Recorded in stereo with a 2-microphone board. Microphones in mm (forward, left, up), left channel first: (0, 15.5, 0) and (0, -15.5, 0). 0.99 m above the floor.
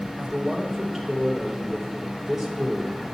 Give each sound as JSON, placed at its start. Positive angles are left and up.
{"t": 0.2, "sound": "a man speaking", "side_deg": -10, "distance_m": 2.5}